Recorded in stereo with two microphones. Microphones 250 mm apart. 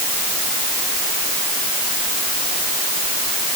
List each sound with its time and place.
Only background noise.